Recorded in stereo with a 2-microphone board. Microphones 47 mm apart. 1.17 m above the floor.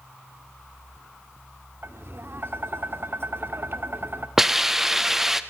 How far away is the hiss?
About 0.7 m.